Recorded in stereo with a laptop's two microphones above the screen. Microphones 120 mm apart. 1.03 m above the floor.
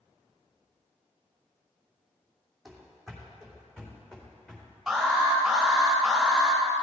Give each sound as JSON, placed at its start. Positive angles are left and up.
{"t": 2.6, "sound": "running footsteps", "side_deg": 0, "distance_m": 2.5}
{"t": 4.9, "sound": "an alarm", "side_deg": 0, "distance_m": 3.5}